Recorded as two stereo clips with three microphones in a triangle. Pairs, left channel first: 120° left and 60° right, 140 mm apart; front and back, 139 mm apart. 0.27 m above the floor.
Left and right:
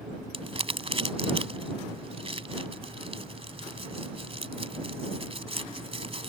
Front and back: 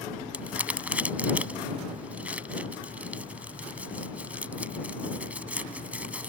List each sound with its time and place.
0.3 s crumpling: 100° right